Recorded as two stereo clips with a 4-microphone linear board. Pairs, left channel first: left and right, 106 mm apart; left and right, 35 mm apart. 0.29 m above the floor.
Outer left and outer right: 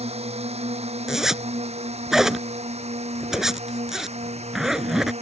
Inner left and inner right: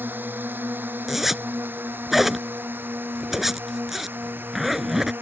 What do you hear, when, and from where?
0.0 s a drone: 75° right (ahead or behind); by 5.2 s 85° right
1.1 s a zipper: 5° right (ahead or behind)